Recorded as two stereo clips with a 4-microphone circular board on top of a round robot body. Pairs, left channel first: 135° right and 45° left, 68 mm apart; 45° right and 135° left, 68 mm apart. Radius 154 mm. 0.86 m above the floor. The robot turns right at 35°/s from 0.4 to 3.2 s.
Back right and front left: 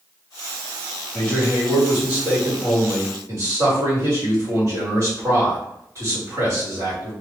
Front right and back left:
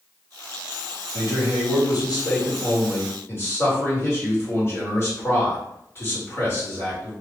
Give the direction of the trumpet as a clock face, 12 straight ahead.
I don't hear a trumpet.